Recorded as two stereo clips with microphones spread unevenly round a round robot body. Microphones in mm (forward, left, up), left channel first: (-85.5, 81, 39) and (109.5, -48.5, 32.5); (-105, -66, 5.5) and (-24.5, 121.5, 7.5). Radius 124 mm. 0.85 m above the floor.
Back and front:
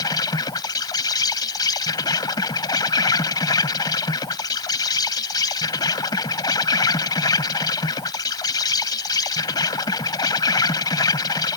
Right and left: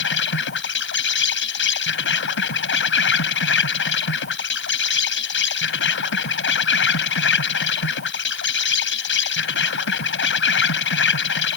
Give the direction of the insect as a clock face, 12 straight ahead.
5 o'clock.